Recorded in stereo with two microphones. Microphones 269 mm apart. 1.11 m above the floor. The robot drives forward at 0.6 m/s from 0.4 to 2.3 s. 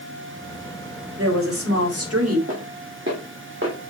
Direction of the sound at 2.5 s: 50° right (ahead or behind).